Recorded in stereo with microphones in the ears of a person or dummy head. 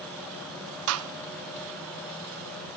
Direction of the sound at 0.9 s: 75° right (ahead or behind).